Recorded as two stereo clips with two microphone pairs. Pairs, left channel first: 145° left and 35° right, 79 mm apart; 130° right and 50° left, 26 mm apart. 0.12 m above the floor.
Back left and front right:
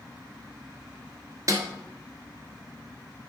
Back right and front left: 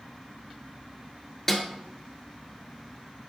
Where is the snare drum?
50° right, 1.4 m.